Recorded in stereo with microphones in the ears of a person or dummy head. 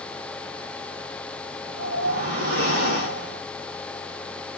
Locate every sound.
1.6 s a whoosh: 55° right (ahead or behind), 4.5 m